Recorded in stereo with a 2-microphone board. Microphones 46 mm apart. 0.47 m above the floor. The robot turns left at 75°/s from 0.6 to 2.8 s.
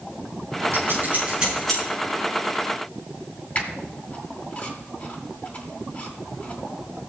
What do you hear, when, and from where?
0.7 s scissors: 70° right (ahead or behind), 7 m; by 1.8 s 10° left (ahead or behind), 7 m
3.5 s a squeak: 40° left (ahead or behind), 2 m